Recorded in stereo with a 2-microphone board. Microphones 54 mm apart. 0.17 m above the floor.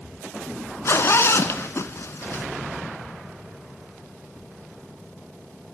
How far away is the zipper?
About 1.4 m.